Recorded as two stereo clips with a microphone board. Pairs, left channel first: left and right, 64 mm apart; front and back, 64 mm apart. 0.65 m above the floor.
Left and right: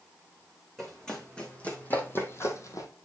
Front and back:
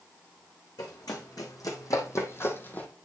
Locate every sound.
0.8 s running footsteps: 5° left, 3 m; by 2.9 s 65° left, 1.6 m